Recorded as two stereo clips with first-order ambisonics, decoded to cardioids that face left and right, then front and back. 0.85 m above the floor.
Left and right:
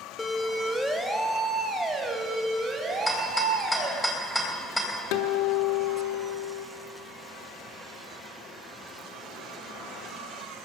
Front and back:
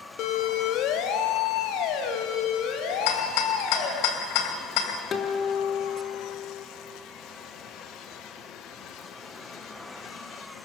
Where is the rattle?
5° left, 3 m.